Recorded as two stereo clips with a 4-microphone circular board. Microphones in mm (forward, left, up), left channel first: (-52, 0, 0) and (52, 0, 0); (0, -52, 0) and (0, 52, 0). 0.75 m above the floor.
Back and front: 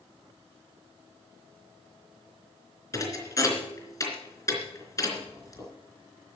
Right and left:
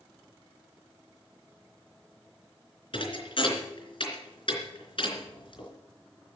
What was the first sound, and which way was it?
A thud, 120° right.